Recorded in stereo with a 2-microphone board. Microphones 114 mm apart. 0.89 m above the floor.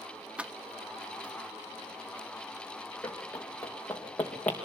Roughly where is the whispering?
No whispering in this recording.